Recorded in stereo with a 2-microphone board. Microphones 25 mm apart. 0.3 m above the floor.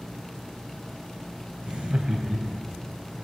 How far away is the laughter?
About 1.4 m.